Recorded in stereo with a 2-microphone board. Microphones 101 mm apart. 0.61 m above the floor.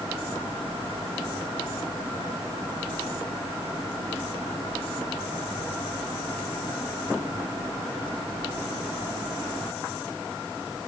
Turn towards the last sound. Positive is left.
No sound to turn to.